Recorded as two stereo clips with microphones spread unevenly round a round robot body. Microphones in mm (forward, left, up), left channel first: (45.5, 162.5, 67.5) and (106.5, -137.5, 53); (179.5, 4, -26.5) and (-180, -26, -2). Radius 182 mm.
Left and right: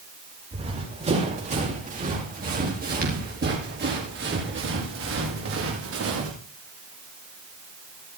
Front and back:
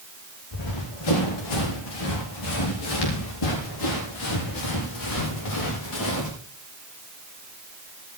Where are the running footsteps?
10° right, 9.5 m; by 6.3 s 35° right, 8.5 m.